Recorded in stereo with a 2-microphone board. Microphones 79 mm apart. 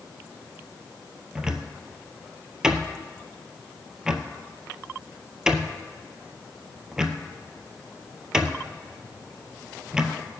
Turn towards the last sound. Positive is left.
turn(degrees=-10)  # may be behind; listen again after turning